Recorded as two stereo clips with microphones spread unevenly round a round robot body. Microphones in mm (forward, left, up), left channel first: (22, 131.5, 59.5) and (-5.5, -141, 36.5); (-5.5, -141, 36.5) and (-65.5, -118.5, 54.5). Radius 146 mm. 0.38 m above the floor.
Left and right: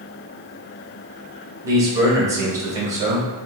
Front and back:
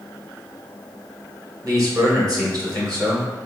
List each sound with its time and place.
1.6 s a man speaking: 170° right, 1.6 m